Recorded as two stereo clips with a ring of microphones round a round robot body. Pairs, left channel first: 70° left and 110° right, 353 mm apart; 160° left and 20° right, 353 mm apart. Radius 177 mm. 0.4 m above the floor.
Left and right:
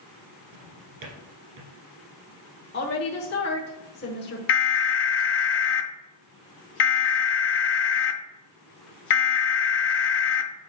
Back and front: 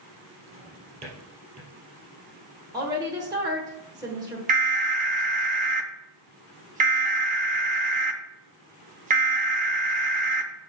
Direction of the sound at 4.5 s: 35° left.